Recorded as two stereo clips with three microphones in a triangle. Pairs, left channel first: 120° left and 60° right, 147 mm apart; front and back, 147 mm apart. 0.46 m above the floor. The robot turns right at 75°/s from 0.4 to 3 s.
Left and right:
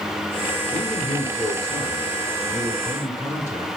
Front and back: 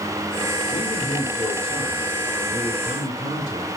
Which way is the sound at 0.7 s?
25° right.